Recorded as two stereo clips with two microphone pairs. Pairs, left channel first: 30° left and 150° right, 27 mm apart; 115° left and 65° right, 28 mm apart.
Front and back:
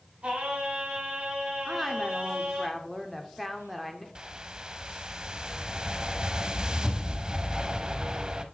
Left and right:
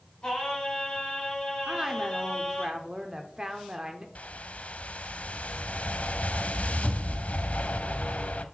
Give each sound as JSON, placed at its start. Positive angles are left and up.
{"t": 0.2, "sound": "singing", "azimuth_deg": 180, "distance_m": 3.5}
{"t": 1.7, "sound": "a woman speaking", "azimuth_deg": -40, "distance_m": 0.8}
{"t": 4.2, "sound": "a whoosh", "azimuth_deg": 150, "distance_m": 0.6}